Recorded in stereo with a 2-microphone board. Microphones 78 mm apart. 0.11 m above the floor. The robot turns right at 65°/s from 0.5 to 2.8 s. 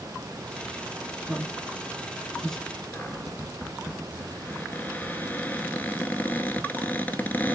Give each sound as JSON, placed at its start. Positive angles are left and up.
{"t": 1.3, "sound": "a man speaking", "side_deg": -20, "distance_m": 1.1}
{"t": 2.9, "sound": "a cupboard door", "side_deg": 25, "distance_m": 0.7}